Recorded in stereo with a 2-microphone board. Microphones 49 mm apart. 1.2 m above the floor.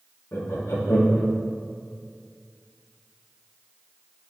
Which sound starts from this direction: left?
Laughter, at 0.3 s.